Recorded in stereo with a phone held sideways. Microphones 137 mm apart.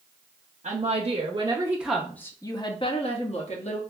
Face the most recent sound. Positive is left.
turn(degrees=60)  # may be behind; listen again after turning